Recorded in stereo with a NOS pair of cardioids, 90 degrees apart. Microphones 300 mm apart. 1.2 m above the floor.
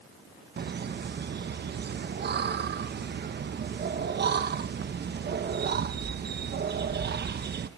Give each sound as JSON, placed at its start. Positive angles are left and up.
{"t": 0.6, "sound": "laughter", "azimuth_deg": -35, "distance_m": 1.0}